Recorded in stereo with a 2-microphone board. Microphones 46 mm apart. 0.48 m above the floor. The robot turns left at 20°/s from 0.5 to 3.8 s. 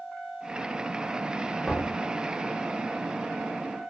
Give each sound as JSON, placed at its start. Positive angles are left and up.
{"t": 1.6, "sound": "knocking", "side_deg": -5, "distance_m": 0.9}